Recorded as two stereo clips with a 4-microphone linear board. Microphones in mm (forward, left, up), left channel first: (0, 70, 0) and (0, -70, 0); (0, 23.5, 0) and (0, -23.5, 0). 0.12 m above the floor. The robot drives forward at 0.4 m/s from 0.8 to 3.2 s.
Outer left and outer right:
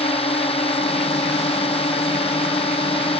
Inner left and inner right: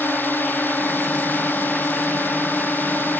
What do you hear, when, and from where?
0.0 s a drone: 45° left (ahead or behind); by 3.2 s 40° left (ahead or behind)